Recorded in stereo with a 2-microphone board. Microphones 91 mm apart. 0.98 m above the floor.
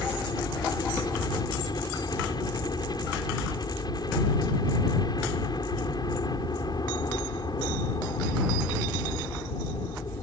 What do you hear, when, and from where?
0.0 s a helicopter: 50° left (ahead or behind)